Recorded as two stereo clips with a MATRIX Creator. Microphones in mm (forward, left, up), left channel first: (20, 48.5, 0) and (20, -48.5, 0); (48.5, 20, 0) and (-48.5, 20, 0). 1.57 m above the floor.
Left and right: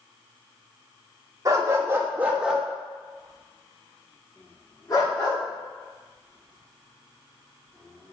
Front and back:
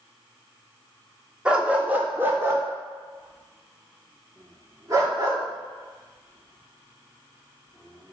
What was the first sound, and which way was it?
A dog barking, 110° right.